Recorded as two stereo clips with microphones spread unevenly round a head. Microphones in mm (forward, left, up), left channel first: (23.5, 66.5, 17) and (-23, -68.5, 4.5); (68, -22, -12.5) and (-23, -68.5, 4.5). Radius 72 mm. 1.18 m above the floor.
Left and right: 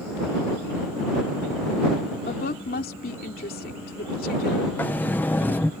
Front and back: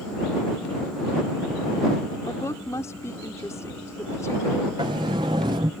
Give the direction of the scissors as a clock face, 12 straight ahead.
No scissors in this recording.